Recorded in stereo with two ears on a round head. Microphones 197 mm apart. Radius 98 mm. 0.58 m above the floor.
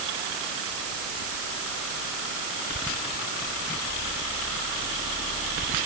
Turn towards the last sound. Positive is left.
No sound to turn to.